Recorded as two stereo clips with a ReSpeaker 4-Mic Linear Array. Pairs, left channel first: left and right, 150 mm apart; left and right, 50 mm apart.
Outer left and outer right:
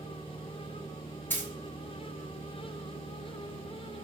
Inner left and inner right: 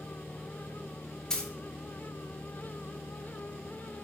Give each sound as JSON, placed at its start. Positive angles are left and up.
{"t": 1.3, "sound": "a dropped coin", "side_deg": 15, "distance_m": 0.5}